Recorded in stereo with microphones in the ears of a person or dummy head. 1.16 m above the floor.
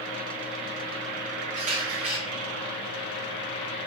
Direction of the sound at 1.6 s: 45° right (ahead or behind).